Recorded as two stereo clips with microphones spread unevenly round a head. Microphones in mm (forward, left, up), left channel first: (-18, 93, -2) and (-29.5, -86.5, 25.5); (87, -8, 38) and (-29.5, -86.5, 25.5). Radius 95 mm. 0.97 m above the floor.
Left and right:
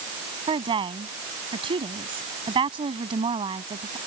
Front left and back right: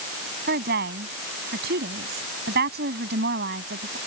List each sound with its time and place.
0.5 s a woman speaking: 155° right